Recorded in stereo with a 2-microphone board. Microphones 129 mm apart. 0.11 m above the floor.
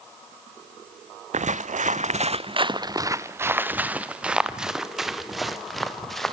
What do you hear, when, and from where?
1.3 s footsteps: 75° right (ahead or behind), 0.6 m; by 6.3 s centre (ahead or behind), 2.5 m